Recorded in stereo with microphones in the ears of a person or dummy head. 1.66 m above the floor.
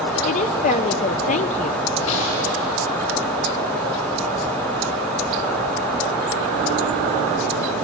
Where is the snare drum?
65° left (ahead or behind), 7 m.